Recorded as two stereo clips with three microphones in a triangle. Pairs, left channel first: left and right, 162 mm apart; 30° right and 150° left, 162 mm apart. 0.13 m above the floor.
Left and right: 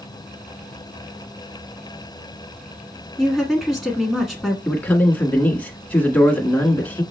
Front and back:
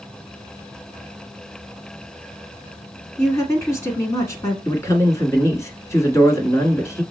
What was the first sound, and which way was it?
A woman speaking, straight ahead.